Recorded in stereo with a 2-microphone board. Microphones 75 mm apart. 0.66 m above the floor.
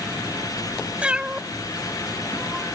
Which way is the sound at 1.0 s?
15° right (ahead or behind).